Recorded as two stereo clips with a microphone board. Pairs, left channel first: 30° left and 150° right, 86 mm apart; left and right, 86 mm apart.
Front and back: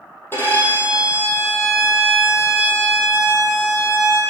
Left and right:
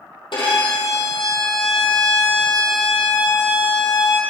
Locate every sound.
0.3 s a violin: 90° left, 2.5 m